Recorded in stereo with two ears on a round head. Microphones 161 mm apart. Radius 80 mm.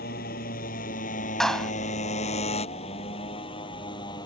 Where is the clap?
5° left (ahead or behind).